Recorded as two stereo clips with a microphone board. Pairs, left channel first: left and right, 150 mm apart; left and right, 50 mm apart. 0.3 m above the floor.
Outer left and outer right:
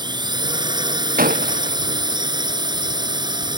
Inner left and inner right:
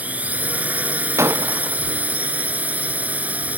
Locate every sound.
0.0 s a drone: 30° right (ahead or behind)
1.2 s breaking glass: 70° right (ahead or behind)